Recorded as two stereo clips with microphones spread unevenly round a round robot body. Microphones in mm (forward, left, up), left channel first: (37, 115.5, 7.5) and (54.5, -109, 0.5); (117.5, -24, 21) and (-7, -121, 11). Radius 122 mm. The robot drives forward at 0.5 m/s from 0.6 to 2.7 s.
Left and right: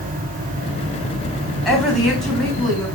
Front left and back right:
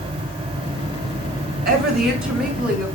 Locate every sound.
1.6 s a woman speaking: 175° right, 3 m